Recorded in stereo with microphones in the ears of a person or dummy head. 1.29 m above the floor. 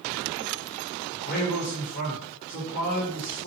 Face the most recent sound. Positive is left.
turn(degrees=45)  # may be behind; listen again after turning